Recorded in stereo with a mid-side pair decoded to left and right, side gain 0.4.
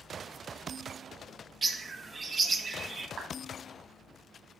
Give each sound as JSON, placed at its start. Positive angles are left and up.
{"t": 1.6, "sound": "a bird", "azimuth_deg": -40, "distance_m": 1.6}
{"t": 3.2, "sound": "a clap", "azimuth_deg": -70, "distance_m": 4.0}